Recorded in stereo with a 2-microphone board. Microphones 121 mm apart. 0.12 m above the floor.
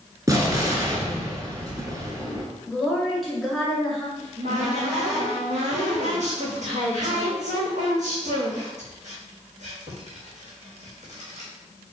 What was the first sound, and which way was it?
An explosion, 30° right (ahead or behind).